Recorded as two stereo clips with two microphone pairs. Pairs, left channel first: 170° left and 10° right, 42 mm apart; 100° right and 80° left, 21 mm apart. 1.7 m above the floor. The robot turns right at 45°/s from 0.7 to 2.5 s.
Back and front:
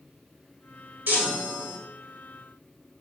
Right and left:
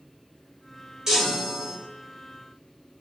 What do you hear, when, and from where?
1.1 s a chime: 25° left, 2.5 m; by 1.8 s 60° left, 2.5 m